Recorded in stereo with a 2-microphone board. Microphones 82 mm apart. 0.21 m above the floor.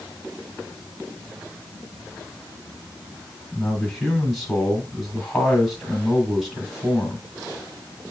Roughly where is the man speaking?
Centre.